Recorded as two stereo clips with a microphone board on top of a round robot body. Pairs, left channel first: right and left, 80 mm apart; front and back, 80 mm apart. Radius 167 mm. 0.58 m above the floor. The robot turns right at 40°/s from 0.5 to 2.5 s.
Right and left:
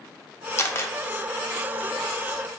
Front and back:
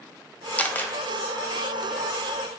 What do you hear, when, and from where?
0.6 s a camera shutter: 60° right, 0.6 m; by 0.9 s 45° right, 0.6 m